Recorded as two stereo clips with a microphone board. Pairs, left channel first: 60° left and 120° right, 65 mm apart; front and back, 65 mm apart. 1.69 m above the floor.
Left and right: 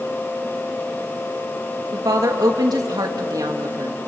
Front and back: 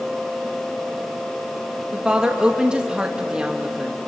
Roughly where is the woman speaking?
Right.